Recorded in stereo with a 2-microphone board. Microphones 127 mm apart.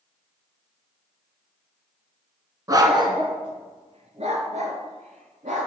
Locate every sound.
2.7 s a dog barking: 30° right (ahead or behind), 1.2 m; by 5.7 s 75° right (ahead or behind), 2.5 m